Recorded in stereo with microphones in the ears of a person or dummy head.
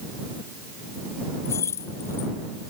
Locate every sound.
1.4 s keys jangling: 10° left (ahead or behind)